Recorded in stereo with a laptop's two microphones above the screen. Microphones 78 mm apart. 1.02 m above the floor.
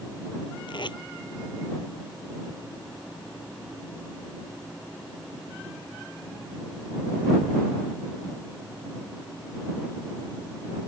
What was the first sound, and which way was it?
Tape being pulled, 70° left (ahead or behind).